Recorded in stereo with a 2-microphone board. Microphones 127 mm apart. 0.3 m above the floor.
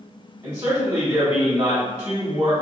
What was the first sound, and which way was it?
A man speaking, 30° right (ahead or behind).